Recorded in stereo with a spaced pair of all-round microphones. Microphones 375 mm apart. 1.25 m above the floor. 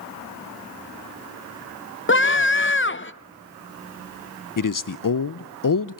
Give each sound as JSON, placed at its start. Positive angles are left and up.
{"t": 2.1, "sound": "a scream", "side_deg": 35, "distance_m": 0.7}
{"t": 4.6, "sound": "a man speaking", "side_deg": 60, "distance_m": 0.5}